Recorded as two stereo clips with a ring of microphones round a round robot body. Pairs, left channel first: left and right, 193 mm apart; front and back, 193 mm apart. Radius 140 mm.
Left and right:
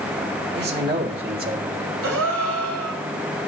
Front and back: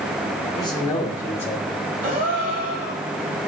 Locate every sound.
0.6 s a man speaking: 70° right, 2.5 m; by 1.7 s 80° right, 1.5 m
2.0 s a gasp: 120° right, 1.5 m